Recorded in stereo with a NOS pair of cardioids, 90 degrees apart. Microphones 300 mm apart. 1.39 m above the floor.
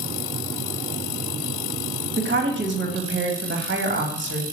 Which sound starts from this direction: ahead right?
A woman speaking, at 2.2 s.